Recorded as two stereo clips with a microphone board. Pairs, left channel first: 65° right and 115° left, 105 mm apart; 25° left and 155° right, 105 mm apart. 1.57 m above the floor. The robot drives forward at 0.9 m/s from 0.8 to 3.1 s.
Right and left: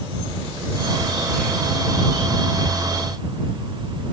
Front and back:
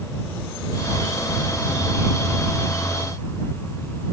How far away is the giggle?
No giggle in this recording.